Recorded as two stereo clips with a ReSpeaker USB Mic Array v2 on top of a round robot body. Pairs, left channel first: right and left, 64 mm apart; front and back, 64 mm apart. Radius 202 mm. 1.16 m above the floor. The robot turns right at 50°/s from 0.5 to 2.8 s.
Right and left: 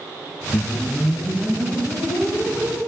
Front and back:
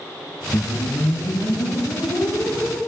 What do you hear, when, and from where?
0.5 s a whoosh: 30° right, 2 m; by 2.8 s 80° left, 2 m